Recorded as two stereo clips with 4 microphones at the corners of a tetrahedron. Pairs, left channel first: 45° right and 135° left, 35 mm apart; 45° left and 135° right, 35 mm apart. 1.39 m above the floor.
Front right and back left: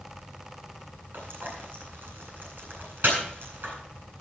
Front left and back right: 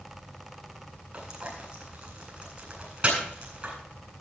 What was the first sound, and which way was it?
Frying, 165° left.